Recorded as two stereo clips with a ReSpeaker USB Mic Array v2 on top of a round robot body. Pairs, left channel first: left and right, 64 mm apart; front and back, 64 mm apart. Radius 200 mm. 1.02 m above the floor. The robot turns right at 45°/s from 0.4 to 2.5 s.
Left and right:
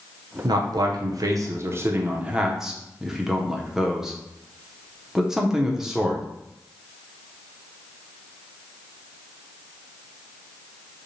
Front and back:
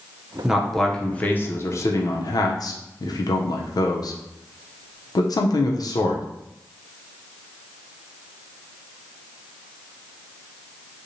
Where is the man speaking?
100° right, 0.5 m; by 6.2 s 5° right, 0.5 m.